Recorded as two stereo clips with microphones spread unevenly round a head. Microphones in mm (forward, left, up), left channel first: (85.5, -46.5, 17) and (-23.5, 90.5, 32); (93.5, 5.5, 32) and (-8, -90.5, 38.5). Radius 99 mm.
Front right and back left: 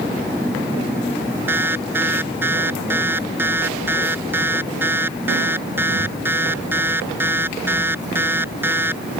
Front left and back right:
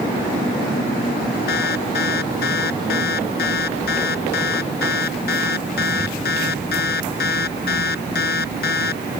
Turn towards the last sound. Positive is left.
turn(degrees=50)